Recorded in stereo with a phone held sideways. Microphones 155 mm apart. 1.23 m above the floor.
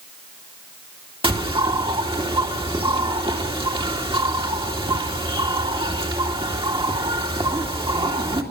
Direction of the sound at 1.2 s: 30° right (ahead or behind).